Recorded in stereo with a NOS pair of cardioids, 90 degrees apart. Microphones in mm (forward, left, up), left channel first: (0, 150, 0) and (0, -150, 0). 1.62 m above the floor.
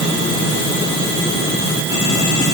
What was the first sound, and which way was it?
Only background noise.